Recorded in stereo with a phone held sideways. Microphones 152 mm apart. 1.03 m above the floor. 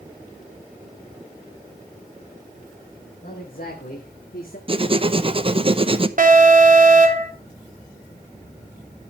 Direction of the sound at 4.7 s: 35° right (ahead or behind).